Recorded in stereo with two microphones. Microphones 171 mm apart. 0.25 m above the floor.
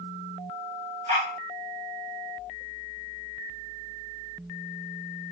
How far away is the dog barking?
About 5 m.